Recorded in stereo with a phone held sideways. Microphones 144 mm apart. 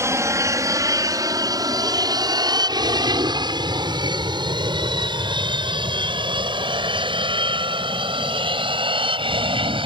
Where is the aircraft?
20° right (ahead or behind); by 9.9 s 35° right (ahead or behind).